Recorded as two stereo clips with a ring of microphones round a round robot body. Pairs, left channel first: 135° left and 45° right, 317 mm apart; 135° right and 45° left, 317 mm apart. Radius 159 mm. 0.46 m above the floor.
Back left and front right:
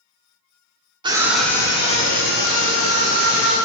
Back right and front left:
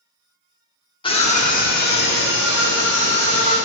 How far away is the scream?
About 1.2 m.